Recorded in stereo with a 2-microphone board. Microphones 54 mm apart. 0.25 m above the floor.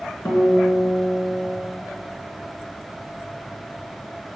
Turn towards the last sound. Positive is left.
turn(degrees=50)  # may be behind; listen again after turning